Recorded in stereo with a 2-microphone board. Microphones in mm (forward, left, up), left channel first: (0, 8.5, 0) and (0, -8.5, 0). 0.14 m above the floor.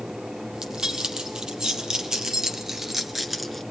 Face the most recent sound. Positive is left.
turn(degrees=5)  # may be behind; listen again after turning